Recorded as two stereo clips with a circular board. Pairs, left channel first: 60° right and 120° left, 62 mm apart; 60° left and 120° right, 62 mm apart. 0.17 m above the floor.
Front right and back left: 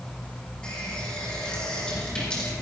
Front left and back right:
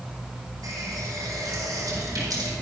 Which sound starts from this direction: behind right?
A running tap, at 0.6 s.